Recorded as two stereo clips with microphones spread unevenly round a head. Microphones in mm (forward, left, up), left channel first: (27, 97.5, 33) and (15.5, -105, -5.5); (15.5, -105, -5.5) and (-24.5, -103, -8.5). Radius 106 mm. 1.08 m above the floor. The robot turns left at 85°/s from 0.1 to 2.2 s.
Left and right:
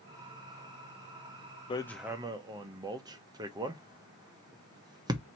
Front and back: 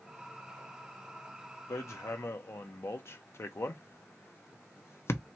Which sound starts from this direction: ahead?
Hammering, at 1.7 s.